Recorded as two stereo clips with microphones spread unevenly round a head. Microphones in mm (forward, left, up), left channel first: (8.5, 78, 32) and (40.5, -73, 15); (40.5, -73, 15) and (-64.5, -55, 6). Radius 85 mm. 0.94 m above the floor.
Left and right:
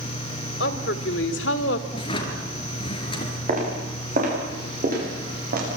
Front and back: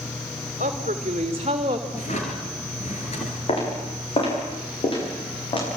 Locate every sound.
0.6 s a woman speaking: 125° left, 2.5 m; by 1.8 s 105° left, 2.5 m
1.9 s a drawer: 45° left, 4 m
3.5 s footsteps: 35° right, 10 m; by 5.7 s 45° right, 11.5 m